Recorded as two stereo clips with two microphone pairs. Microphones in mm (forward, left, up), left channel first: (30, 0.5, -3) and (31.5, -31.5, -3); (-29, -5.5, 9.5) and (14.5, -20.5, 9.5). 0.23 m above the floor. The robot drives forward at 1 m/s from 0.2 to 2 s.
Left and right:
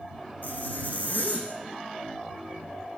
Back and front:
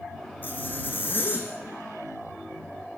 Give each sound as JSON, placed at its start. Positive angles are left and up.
{"t": 0.4, "sound": "a zipper", "azimuth_deg": 110, "distance_m": 5.0}